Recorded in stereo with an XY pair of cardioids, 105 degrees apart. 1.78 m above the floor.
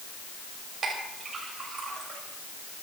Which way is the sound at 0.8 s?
45° right.